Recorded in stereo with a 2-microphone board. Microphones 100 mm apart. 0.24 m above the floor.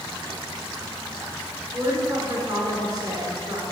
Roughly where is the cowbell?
No cowbell in this recording.